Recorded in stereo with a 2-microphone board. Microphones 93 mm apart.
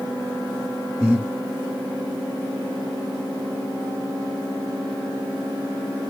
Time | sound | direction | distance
1.0 | breathing | 15° right (ahead or behind) | 1.7 m